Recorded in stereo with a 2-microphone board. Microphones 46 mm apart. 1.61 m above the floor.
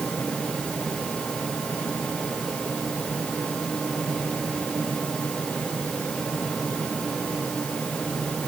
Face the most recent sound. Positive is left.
No sound to turn to.